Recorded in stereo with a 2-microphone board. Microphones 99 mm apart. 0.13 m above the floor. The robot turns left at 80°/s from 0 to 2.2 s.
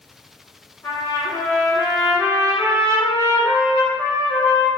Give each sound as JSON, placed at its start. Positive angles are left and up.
{"t": 0.8, "sound": "a trumpet", "side_deg": 20, "distance_m": 1.5}